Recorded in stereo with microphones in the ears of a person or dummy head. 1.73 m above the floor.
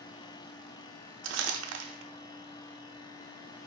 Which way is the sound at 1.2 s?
70° right (ahead or behind).